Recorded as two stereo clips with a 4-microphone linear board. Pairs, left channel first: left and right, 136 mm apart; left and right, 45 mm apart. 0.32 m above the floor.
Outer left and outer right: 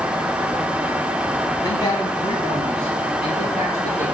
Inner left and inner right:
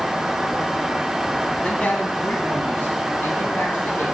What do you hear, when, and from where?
1.6 s a man speaking: 30° left (ahead or behind), 1.6 m; by 4.0 s 45° left (ahead or behind), 3.5 m